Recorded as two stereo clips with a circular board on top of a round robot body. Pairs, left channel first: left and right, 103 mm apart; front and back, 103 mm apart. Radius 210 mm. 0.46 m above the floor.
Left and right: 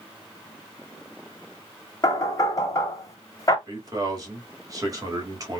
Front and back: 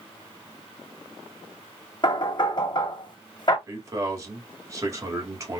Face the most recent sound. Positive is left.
turn(degrees=-130)